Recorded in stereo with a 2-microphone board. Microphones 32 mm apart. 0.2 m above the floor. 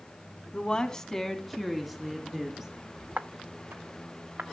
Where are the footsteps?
65° right (ahead or behind), 0.6 m; by 4.4 s 80° right, 1.5 m.